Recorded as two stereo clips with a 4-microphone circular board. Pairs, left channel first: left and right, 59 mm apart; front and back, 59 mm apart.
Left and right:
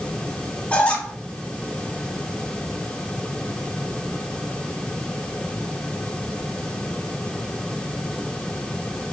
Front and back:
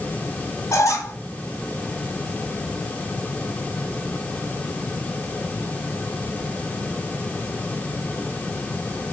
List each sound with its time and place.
0.7 s a squeak: 20° left, 2 m